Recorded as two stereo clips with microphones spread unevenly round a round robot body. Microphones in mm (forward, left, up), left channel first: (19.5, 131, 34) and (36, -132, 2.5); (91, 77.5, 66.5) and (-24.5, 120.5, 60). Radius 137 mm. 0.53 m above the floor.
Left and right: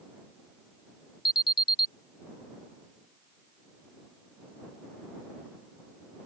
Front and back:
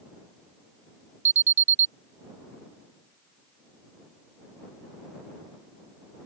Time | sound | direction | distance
1.2 | an alarm | 170° left | ?